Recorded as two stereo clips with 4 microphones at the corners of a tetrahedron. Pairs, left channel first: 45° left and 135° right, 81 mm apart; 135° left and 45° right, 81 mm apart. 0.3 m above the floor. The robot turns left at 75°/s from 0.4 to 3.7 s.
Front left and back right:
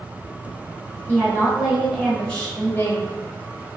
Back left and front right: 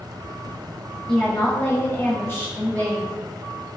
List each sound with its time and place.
1.1 s a woman speaking: 160° right, 1.2 m; by 3.2 s 45° left, 1.2 m